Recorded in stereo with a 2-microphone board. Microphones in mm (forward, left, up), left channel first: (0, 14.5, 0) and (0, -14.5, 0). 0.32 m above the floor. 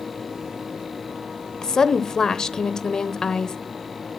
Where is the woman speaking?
20° left (ahead or behind), 0.9 m.